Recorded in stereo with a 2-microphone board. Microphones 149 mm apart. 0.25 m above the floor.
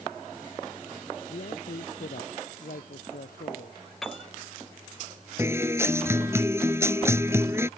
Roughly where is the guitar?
Centre.